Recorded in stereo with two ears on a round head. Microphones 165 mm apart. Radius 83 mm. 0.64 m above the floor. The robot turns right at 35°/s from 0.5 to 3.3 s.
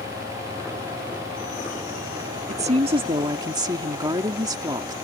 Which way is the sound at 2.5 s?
40° right (ahead or behind).